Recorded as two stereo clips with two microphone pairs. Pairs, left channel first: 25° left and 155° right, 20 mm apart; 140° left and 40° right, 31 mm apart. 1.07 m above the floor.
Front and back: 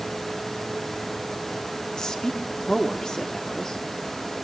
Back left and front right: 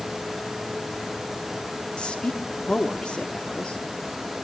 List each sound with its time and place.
2.0 s a woman speaking: 80° left, 2.5 m